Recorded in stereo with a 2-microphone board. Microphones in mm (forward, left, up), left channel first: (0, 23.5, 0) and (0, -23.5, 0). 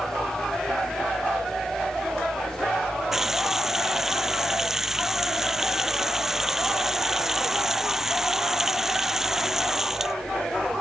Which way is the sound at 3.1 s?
10° right (ahead or behind).